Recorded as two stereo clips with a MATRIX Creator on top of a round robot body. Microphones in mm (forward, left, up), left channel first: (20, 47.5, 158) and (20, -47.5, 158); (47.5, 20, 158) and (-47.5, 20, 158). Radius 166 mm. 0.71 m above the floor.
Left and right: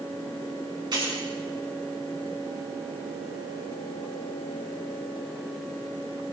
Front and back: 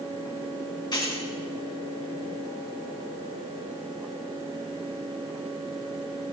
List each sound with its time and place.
0.9 s keys jangling: 45° right, 5 m